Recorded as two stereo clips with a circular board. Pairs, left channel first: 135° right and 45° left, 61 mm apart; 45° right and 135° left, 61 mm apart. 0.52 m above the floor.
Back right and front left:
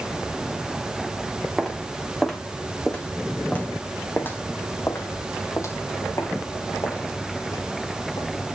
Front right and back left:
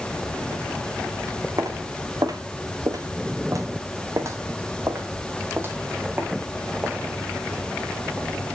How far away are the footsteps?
About 2.5 m.